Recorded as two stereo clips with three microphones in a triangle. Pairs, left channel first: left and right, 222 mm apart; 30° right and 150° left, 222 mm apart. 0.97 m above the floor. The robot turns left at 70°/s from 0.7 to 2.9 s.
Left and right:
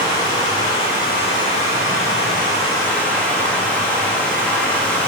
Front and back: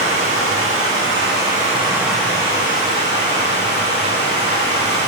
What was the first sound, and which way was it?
Running water, 160° left.